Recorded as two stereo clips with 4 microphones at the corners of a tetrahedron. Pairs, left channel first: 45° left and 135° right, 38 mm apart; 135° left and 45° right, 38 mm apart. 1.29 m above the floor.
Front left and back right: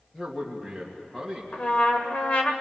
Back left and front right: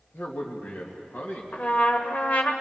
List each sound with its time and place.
0.1 s a man speaking: 120° left, 2 m
1.5 s a trumpet: 95° left, 1.5 m